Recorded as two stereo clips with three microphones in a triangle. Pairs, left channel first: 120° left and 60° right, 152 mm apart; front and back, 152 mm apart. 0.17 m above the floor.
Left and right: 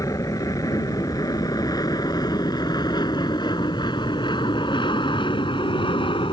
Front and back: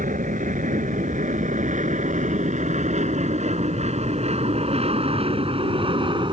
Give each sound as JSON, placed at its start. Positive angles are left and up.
{"t": 0.0, "sound": "an aircraft", "azimuth_deg": -175}